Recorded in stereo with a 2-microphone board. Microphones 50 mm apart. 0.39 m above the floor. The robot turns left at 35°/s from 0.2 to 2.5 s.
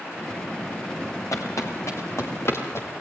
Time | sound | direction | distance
1.3 | footsteps | 85° left | 5 m